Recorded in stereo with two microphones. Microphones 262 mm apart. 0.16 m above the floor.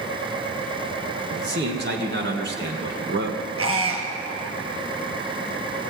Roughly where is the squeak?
Right.